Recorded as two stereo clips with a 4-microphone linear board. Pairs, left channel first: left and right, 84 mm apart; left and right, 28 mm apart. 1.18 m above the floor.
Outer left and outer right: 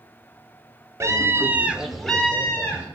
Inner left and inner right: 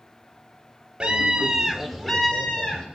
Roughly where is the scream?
Right.